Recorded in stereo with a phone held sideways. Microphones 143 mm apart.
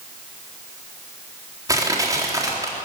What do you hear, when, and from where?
1.7 s crushing: 25° right (ahead or behind), 3.5 m